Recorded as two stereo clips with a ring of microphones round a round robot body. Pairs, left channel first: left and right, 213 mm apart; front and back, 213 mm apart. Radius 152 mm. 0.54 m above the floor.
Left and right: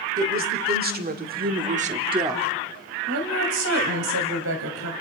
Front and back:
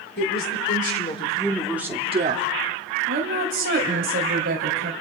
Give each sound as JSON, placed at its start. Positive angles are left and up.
{"t": 0.2, "sound": "a woman speaking", "azimuth_deg": -45, "distance_m": 2.5}
{"t": 3.1, "sound": "a woman speaking", "azimuth_deg": -125, "distance_m": 3.0}